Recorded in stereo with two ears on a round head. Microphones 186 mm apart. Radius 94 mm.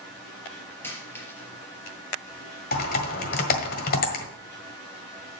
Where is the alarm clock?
I don't hear an alarm clock.